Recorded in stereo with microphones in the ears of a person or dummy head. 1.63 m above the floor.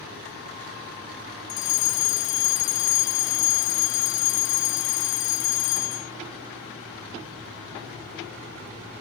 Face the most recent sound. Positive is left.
turn(degrees=70)  # may be behind; listen again after turning